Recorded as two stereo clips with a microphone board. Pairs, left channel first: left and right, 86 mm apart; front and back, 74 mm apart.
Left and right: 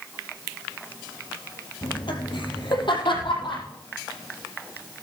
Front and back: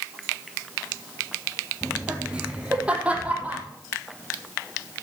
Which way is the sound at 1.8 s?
100° left.